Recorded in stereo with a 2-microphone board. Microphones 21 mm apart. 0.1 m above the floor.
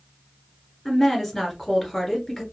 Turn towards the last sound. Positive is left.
turn(degrees=10)  # may be behind; listen again after turning